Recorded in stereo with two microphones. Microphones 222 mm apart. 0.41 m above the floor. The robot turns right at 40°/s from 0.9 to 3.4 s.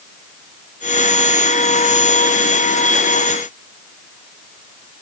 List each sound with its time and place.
Only background noise.